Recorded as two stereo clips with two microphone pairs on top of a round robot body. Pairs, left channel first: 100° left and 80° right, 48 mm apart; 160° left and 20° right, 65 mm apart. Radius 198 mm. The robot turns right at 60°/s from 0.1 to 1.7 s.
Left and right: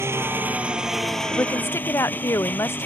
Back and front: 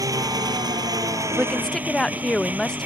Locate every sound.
0.0 s an engine running: 50° right; by 2.9 s 50° left
1.3 s a woman speaking: 60° left; by 2.9 s 80° left